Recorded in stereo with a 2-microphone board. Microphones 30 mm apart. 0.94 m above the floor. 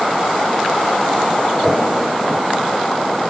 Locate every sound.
1.6 s a whoosh: centre (ahead or behind), 0.8 m